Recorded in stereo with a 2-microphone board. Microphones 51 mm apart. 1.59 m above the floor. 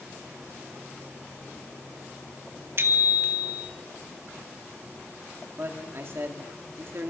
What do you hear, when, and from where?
2.8 s a bicycle bell: 50° right (ahead or behind), 2 m
5.6 s a man speaking: 50° right (ahead or behind), 3 m